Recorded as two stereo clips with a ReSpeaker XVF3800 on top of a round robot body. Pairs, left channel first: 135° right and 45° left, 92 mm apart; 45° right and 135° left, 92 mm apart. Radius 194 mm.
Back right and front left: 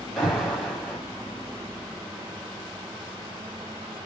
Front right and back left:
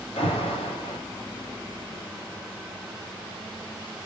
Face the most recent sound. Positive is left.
turn(degrees=-50)